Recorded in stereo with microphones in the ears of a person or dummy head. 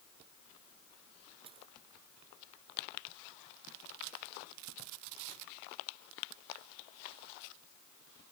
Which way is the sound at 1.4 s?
25° right (ahead or behind).